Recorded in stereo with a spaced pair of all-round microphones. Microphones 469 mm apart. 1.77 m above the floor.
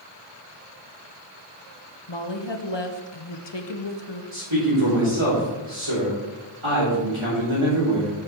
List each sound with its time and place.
2.1 s a woman speaking: 60° left (ahead or behind), 1.0 m
4.3 s a man speaking: 70° right (ahead or behind), 4 m